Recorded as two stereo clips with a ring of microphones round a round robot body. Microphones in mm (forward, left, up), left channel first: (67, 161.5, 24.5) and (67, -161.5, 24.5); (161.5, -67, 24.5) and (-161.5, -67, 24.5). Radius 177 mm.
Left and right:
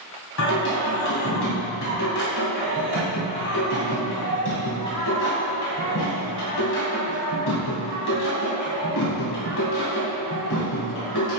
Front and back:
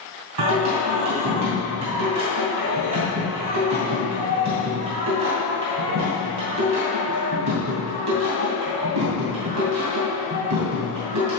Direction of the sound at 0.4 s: 145° left.